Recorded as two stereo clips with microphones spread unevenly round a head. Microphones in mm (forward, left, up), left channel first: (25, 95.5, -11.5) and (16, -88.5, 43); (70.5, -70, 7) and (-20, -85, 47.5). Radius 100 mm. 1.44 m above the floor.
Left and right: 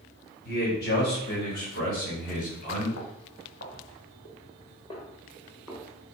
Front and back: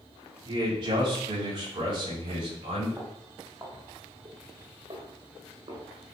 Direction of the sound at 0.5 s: 130° left.